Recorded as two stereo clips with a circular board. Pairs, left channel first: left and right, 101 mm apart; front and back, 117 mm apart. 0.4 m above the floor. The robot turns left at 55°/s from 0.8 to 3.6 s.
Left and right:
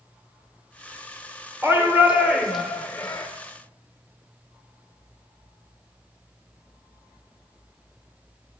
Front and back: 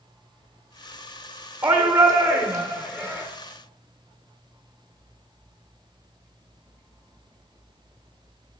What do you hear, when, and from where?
1.6 s a shout: 130° right, 1.1 m; by 3.3 s 140° left, 1.1 m